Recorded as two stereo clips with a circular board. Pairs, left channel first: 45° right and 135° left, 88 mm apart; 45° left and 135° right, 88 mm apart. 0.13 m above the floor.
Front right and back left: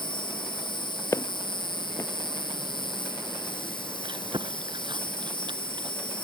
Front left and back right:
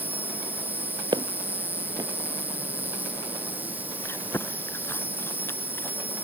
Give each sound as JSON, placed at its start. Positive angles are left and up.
{"t": 0.0, "sound": "an insect", "azimuth_deg": -65}
{"t": 1.1, "sound": "footsteps", "azimuth_deg": -100}
{"t": 4.0, "sound": "chewing", "azimuth_deg": 110}